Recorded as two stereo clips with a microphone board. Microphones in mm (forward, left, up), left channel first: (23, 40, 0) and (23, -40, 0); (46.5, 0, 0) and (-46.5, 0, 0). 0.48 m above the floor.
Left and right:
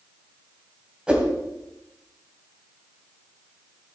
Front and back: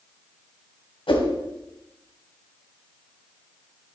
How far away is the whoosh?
About 2.5 m.